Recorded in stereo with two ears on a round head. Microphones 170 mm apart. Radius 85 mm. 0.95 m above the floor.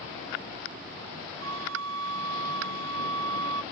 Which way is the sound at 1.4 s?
80° right.